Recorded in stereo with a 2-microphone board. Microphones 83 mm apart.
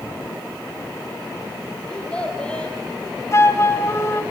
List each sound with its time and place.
1.9 s a child speaking: 10° left (ahead or behind), 5.5 m
3.3 s a flute: 35° left (ahead or behind), 1.9 m